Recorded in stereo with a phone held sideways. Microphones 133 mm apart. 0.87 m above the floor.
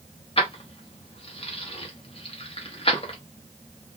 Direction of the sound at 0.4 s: 45° left (ahead or behind).